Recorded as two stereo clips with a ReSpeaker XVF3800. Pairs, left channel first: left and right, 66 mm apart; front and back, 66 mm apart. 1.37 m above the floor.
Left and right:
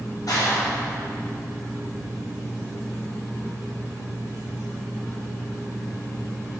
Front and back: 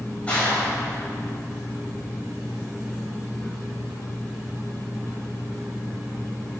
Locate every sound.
0.3 s a clap: 70° left, 8 m